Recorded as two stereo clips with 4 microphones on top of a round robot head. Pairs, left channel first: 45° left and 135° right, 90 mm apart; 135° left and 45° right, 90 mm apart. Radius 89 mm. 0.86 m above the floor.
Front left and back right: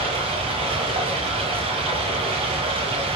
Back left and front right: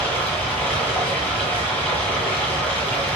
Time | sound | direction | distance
0.0 | running water | 155° right | 9.5 m